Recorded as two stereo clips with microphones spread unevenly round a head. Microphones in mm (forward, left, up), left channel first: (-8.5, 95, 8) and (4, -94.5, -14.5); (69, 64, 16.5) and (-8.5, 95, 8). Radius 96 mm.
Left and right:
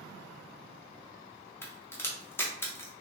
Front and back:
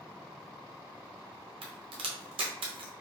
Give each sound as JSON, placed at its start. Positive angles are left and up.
{"t": 1.6, "sound": "a crack", "azimuth_deg": 170, "distance_m": 0.8}